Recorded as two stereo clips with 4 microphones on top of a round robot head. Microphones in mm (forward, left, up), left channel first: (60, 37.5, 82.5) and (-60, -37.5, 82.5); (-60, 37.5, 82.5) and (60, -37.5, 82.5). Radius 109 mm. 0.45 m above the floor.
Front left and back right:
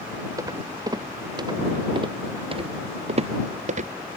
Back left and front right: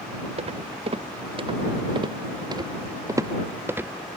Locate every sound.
0.4 s footsteps: 80° right; by 3.9 s 110° right